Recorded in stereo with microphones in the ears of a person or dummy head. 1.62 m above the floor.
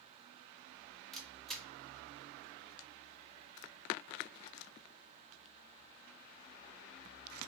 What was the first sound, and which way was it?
A camera shutter, centre (ahead or behind).